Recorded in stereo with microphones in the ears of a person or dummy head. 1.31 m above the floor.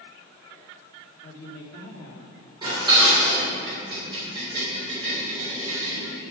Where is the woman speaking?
70° left (ahead or behind), 1.7 m.